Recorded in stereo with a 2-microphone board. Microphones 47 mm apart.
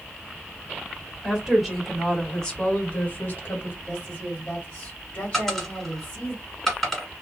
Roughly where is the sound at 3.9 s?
Left.